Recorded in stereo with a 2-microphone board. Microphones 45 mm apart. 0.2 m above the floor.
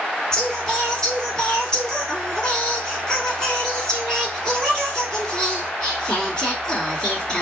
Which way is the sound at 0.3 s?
15° left (ahead or behind).